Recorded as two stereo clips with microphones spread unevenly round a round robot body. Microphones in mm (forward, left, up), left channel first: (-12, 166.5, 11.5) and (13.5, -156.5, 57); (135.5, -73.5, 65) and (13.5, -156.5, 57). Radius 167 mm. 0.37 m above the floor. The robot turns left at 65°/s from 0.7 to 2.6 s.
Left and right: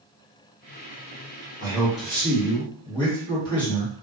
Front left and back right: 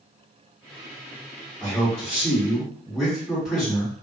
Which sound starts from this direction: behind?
A man speaking, at 1.6 s.